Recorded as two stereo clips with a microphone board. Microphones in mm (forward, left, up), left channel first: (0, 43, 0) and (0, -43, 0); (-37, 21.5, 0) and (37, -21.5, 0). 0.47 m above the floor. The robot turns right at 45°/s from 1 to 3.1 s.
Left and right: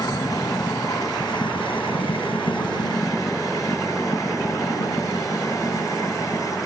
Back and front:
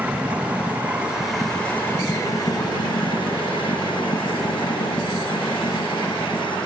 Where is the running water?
45° left; by 6.7 s 140° left.